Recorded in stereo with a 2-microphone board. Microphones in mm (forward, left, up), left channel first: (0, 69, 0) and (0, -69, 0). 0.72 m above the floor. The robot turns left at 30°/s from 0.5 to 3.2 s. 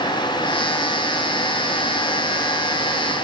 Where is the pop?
No pop in this recording.